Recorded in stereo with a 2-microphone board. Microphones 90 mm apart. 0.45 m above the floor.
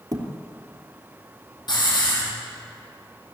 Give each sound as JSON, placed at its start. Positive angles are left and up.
{"t": 0.1, "sound": "a thud", "side_deg": -40, "distance_m": 3.0}
{"t": 1.7, "sound": "a hiss", "side_deg": 50, "distance_m": 7.5}